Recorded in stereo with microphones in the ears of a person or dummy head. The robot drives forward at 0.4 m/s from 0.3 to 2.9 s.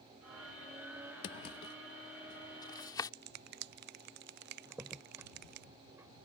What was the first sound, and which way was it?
A drawer, 30° left (ahead or behind).